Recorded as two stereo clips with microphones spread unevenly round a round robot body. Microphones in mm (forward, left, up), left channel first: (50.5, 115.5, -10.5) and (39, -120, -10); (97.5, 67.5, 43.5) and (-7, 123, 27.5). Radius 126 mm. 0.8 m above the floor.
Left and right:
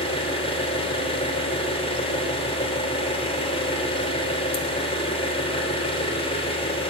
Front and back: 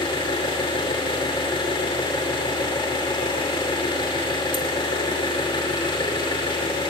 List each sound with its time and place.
0.0 s an engine running: 20° left, 3 m